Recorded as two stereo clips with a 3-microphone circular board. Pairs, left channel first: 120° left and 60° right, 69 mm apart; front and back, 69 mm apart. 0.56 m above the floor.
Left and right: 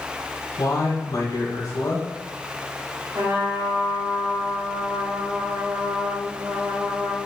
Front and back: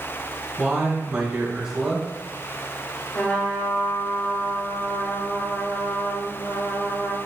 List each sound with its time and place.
0.6 s a man speaking: 100° left, 2 m
3.1 s a trumpet: 60° right, 2 m